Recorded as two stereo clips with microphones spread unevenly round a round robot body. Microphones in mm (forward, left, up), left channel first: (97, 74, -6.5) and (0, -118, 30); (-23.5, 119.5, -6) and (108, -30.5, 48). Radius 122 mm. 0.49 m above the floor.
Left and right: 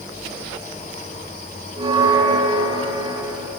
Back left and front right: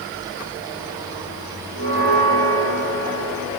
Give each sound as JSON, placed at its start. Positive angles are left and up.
{"t": 1.8, "sound": "a bell", "azimuth_deg": 170, "distance_m": 7.0}